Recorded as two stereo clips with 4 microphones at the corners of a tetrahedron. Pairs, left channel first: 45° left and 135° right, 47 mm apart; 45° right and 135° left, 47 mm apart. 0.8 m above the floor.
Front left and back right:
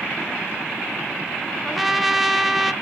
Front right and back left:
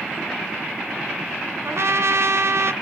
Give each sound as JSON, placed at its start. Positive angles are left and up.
{"t": 1.6, "sound": "a trumpet", "azimuth_deg": 135, "distance_m": 0.8}